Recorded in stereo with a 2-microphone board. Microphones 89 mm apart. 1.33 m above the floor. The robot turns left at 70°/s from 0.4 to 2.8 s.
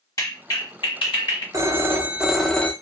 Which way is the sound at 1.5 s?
120° right.